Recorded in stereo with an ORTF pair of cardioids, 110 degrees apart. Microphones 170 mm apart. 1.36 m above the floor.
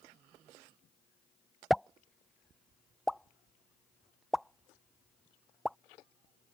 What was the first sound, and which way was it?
A pop, straight ahead.